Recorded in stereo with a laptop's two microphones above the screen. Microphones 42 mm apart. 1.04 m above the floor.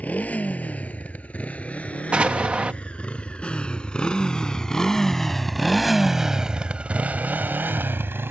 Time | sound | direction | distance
0.0 | a motorcycle | 35° left (ahead or behind) | ?
2.1 | an explosion | 30° right (ahead or behind) | ?